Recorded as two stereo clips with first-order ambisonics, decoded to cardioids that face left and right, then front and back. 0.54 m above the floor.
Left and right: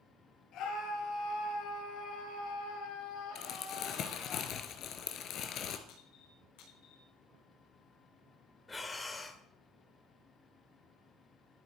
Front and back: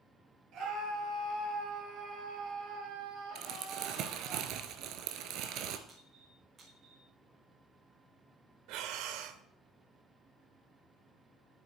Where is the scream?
135° left, 9 m; by 4.3 s 120° left, 9.5 m.